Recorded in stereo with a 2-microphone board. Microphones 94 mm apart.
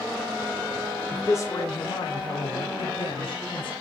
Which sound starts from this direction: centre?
A man speaking, at 1.1 s.